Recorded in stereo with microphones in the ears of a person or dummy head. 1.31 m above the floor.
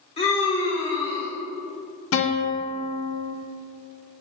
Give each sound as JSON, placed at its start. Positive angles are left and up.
{"t": 0.2, "sound": "a scream", "side_deg": 30, "distance_m": 1.1}
{"t": 2.1, "sound": "a guitar", "side_deg": 65, "distance_m": 0.9}